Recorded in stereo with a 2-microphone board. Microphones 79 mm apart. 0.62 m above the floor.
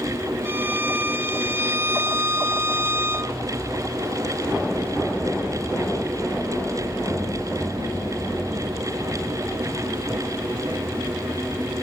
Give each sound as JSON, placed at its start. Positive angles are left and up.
{"t": 0.5, "sound": "a violin", "side_deg": -30, "distance_m": 0.6}